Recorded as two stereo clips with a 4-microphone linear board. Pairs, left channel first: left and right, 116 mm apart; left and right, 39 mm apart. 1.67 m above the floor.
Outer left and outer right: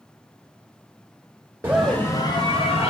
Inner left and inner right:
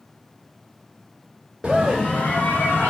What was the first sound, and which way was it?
A scream, 20° right (ahead or behind).